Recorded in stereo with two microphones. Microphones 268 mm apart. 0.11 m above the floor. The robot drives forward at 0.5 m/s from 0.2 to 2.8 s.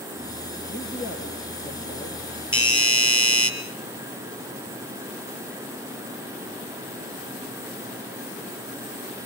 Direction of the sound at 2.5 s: 50° left (ahead or behind).